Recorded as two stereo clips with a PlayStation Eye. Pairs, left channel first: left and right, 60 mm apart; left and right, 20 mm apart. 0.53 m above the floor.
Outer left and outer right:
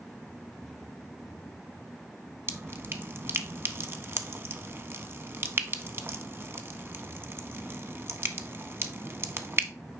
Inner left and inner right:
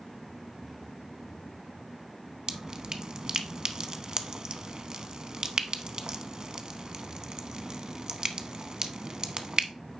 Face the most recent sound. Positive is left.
turn(degrees=-40)  # may be behind; listen again after turning